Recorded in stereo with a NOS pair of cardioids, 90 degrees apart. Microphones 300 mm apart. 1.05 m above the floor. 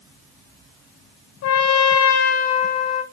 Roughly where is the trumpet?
Ahead left.